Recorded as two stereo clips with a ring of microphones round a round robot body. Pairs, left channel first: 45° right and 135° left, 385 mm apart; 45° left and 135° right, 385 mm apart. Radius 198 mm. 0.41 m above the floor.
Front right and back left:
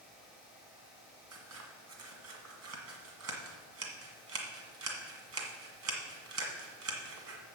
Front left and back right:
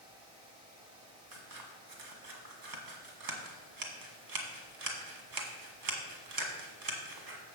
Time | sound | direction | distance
1.3 | scissors | 170° right | 1.7 m